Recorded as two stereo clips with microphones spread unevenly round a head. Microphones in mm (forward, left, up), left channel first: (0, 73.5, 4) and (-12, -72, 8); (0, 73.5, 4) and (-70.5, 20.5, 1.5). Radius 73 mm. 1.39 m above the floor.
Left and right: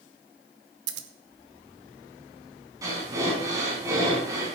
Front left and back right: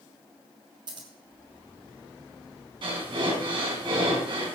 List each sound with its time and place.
0.9 s scissors: 80° right, 1.3 m
2.8 s breathing: 160° right, 5.5 m